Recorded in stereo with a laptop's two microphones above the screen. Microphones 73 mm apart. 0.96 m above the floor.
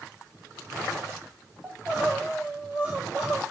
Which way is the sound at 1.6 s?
15° right (ahead or behind).